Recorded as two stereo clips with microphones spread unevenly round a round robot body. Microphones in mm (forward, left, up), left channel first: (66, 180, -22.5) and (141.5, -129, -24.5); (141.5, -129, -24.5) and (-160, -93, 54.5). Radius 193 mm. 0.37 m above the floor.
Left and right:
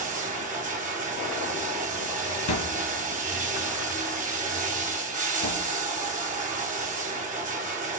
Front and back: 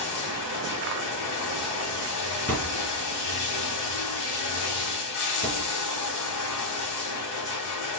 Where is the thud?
80° left, 2.0 m.